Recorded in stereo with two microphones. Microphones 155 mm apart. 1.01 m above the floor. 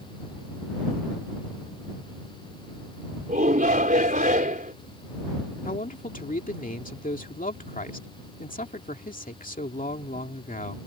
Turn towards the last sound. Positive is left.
turn(degrees=60)  # may be behind; listen again after turning